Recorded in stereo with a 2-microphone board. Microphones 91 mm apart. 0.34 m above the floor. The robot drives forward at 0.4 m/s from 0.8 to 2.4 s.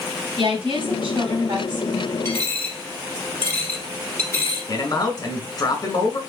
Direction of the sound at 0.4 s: 55° right (ahead or behind).